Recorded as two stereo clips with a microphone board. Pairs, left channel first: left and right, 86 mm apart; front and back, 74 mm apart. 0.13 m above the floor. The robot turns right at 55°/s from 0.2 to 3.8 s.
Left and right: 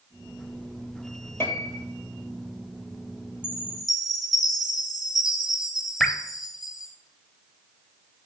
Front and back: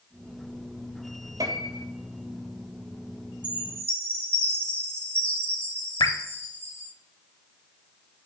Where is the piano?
150° left, 0.7 m; by 1.9 s 175° left, 0.7 m.